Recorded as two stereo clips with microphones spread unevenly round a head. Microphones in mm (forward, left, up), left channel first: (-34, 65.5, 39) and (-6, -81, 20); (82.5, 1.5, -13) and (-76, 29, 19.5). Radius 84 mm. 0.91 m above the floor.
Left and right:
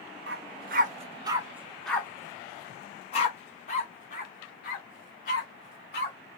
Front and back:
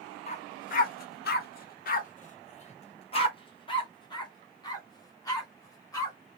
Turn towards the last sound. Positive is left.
turn(degrees=65)